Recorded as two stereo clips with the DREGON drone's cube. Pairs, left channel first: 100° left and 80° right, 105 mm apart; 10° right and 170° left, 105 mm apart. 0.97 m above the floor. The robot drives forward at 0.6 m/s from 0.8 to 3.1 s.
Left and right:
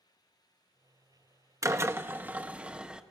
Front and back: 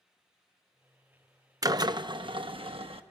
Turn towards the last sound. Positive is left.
turn(degrees=-160)